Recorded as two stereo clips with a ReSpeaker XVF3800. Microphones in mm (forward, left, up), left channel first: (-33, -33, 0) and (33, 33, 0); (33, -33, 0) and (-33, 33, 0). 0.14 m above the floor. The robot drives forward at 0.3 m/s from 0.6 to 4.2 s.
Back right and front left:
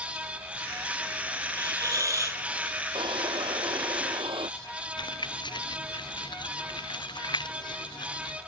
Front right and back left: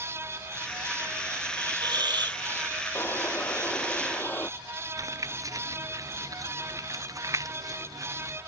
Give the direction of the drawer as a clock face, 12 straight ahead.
11 o'clock.